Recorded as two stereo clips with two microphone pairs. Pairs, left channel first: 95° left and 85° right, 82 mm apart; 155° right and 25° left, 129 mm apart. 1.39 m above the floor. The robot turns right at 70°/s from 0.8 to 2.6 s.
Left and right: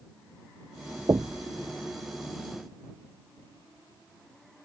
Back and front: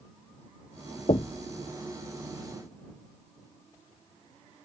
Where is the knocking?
120° right; by 1.5 s 95° right.